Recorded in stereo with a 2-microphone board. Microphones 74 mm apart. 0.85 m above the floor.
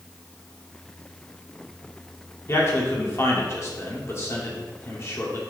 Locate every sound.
2.5 s a man speaking: 40° left (ahead or behind), 1.8 m